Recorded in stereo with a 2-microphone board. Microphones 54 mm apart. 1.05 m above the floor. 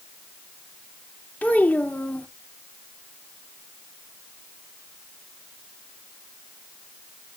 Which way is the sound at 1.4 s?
30° left (ahead or behind).